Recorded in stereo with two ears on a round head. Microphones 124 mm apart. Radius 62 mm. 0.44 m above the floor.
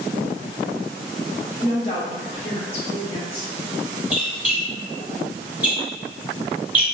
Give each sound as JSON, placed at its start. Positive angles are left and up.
{"t": 1.6, "sound": "a woman speaking", "side_deg": 40, "distance_m": 0.9}
{"t": 4.1, "sound": "a squeak", "side_deg": -10, "distance_m": 0.6}